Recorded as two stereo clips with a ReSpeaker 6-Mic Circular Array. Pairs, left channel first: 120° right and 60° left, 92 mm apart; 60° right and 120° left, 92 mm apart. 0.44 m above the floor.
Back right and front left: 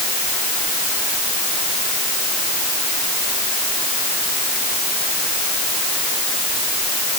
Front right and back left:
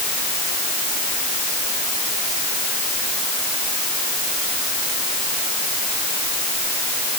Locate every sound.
Only background noise.